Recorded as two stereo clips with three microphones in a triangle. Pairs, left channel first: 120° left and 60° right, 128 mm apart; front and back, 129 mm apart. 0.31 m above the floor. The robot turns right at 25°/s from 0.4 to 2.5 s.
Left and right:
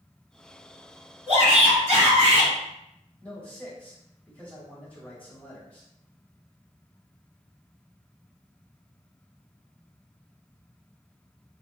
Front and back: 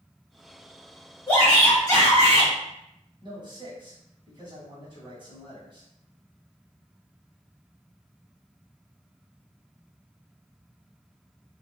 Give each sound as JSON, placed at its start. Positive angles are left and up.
{"t": 1.3, "sound": "a shout", "azimuth_deg": -65, "distance_m": 1.9}
{"t": 3.2, "sound": "a man speaking", "azimuth_deg": -170, "distance_m": 1.6}